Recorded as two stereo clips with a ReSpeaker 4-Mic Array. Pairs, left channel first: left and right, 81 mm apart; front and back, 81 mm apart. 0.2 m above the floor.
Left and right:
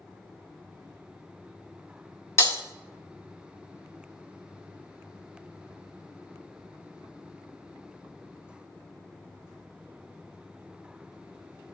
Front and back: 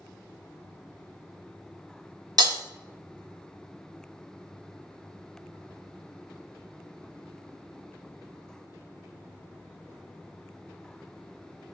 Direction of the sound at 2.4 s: 145° left.